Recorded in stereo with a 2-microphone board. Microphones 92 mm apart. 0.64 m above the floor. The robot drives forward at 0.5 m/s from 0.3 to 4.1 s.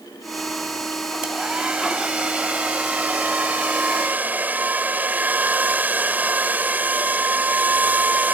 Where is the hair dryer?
10° right (ahead or behind); by 8.3 s 20° right (ahead or behind).